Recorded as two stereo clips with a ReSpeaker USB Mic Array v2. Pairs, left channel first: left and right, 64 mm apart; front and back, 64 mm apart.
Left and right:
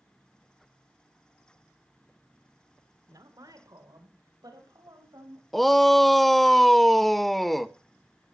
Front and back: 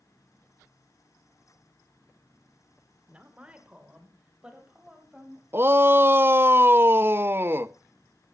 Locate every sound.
3.1 s a woman speaking: 110° right, 3 m; by 5.4 s 105° right, 6.5 m
5.5 s a shout: straight behind, 0.6 m